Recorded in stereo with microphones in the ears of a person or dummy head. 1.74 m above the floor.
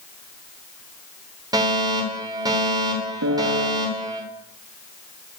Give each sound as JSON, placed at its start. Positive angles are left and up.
{"t": 1.5, "sound": "a fire alarm", "side_deg": -20, "distance_m": 9.5}
{"t": 3.2, "sound": "a piano", "side_deg": -65, "distance_m": 4.0}